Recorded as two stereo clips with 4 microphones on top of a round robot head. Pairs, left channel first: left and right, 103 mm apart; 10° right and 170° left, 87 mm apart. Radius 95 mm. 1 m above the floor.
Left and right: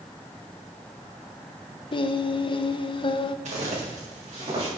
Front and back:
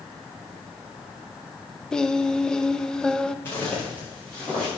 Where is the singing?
70° left, 0.7 m.